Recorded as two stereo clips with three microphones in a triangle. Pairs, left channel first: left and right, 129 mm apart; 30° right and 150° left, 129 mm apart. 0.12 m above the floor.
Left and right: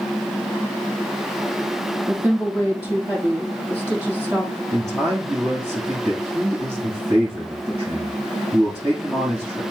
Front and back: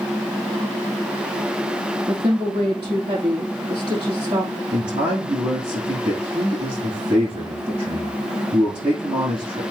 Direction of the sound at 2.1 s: 160° right.